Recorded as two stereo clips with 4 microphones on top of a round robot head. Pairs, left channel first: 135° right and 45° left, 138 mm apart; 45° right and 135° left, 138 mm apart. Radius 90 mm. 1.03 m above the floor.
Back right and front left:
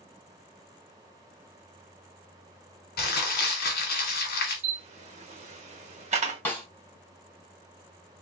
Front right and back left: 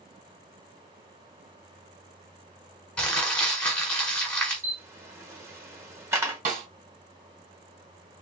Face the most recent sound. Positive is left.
turn(degrees=150)